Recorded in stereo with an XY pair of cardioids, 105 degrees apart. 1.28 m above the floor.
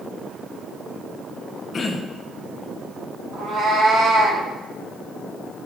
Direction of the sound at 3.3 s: 60° right.